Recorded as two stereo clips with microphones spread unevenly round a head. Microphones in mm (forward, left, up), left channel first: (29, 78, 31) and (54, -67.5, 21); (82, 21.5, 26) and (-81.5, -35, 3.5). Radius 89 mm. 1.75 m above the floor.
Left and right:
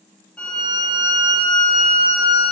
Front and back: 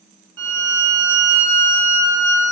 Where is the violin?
Straight behind, 1.2 m.